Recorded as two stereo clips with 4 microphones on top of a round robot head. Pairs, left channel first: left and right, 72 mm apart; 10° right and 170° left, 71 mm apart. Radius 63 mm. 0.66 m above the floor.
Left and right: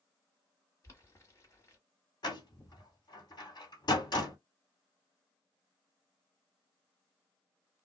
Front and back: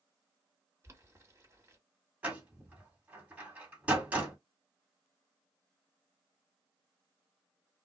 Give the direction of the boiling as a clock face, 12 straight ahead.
8 o'clock.